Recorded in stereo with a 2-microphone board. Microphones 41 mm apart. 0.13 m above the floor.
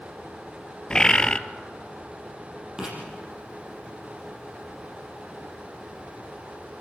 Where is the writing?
15° right (ahead or behind), 5.5 m.